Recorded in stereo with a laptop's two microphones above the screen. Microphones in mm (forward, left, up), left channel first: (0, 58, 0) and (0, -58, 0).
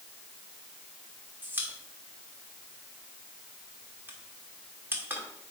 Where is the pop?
20° right (ahead or behind), 1.7 m.